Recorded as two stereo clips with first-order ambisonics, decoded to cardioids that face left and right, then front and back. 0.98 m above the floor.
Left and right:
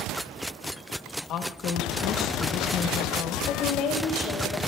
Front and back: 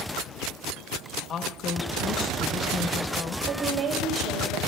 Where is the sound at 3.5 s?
145° left, 4 m.